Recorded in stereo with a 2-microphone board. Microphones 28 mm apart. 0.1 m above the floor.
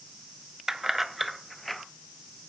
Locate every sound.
0.7 s keys jangling: 20° right (ahead or behind), 0.8 m; by 1.8 s 5° left (ahead or behind), 1.2 m